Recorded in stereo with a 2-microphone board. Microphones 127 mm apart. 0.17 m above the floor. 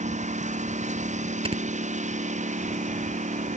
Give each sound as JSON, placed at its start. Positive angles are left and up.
{"t": 0.0, "sound": "a lawn mower", "side_deg": -60}
{"t": 1.4, "sound": "snoring", "side_deg": -45}